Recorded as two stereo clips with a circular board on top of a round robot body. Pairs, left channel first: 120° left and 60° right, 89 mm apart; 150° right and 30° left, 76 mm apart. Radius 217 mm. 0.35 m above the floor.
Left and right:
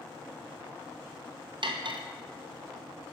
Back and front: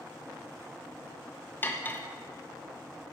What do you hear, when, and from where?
1.6 s cutlery clinking: 85° right, 0.8 m